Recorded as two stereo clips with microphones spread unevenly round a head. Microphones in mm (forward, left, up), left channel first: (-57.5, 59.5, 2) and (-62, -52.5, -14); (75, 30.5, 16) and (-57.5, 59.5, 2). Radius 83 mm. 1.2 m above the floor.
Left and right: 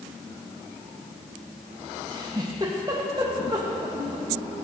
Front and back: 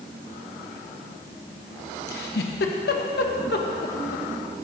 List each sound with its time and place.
2.1 s a giggle: 25° right, 1.2 m